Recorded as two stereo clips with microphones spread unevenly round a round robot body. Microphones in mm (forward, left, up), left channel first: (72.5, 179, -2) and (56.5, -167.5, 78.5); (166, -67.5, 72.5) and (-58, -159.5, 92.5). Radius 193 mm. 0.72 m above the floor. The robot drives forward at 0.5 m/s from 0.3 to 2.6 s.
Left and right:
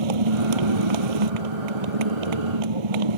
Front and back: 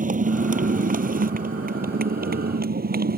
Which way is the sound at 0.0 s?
100° right.